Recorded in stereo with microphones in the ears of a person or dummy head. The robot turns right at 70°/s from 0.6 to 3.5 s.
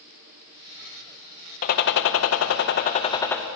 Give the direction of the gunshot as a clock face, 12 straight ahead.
10 o'clock.